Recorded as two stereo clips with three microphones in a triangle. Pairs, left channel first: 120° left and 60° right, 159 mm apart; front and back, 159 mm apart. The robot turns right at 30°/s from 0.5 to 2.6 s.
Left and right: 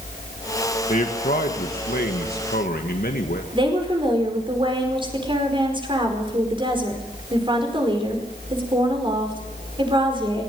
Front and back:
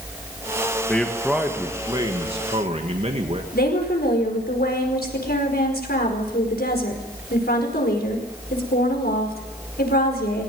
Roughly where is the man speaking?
Left.